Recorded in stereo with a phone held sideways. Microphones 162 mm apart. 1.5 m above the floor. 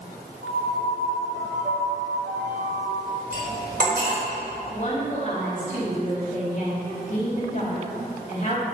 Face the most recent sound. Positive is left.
turn(degrees=50)  # may be behind; listen again after turning